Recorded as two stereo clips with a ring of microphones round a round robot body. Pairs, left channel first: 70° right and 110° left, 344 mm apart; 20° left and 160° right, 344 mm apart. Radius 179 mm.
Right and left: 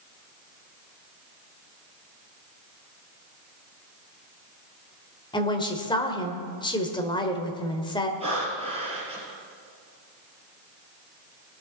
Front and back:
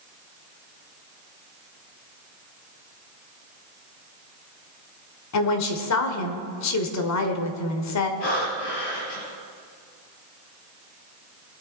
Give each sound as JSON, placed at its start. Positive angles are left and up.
{"t": 5.3, "sound": "a woman speaking", "azimuth_deg": 5, "distance_m": 1.6}
{"t": 8.2, "sound": "breathing", "azimuth_deg": 40, "distance_m": 3.5}